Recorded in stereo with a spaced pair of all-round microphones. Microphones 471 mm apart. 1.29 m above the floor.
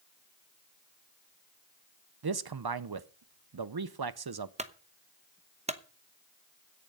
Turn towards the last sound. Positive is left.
turn(degrees=-15)  # may be behind; listen again after turning